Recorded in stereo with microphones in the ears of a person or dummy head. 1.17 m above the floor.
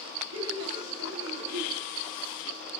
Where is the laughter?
75° right (ahead or behind), 2.5 m.